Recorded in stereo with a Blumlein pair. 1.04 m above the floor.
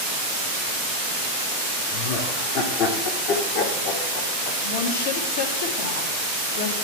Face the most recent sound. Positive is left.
turn(degrees=60)